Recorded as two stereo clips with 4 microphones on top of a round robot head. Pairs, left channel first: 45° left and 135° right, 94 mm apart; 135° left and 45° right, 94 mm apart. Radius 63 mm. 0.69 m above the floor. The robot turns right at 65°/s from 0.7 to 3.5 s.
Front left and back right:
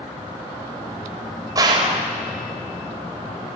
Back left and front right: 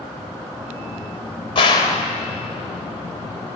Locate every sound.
1.6 s a gunshot: 170° left, 1.0 m; by 2.1 s 155° right, 1.0 m